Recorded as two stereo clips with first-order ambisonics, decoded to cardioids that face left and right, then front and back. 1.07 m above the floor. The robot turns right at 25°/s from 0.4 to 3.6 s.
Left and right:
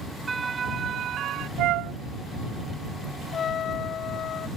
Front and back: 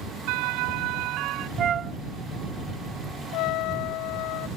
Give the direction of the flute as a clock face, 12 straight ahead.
4 o'clock.